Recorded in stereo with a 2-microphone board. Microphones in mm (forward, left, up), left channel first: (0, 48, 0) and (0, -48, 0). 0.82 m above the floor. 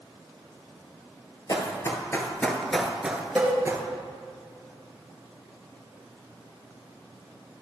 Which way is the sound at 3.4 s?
5° left (ahead or behind).